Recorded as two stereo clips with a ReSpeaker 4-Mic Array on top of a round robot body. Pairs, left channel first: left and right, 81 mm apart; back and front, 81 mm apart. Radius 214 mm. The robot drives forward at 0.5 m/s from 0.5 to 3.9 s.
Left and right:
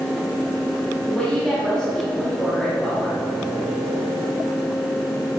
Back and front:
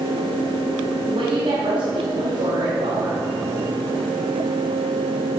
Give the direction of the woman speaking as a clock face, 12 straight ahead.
12 o'clock.